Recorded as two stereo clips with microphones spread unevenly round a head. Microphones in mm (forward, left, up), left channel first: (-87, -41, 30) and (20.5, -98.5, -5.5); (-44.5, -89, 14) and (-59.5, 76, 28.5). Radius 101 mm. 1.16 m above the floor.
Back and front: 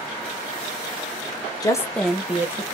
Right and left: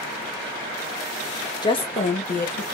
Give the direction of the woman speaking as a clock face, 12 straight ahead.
5 o'clock.